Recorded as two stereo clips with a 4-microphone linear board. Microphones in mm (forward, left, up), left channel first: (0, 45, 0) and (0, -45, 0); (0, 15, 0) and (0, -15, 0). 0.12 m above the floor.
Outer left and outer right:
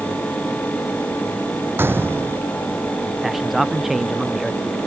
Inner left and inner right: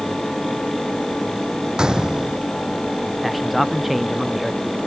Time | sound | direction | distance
1.8 | a gunshot | 25° right (ahead or behind) | ?
3.2 | a man speaking | 5° right (ahead or behind) | ?